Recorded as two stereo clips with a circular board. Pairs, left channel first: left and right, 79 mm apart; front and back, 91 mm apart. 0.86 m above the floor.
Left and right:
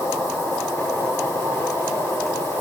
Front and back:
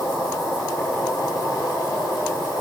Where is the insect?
35° left, 6.5 m.